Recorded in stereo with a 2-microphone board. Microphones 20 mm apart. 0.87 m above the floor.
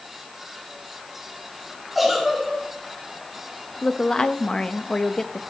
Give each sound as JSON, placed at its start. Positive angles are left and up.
{"t": 1.9, "sound": "a giggle", "side_deg": -10, "distance_m": 3.5}
{"t": 3.8, "sound": "a woman speaking", "side_deg": 30, "distance_m": 0.6}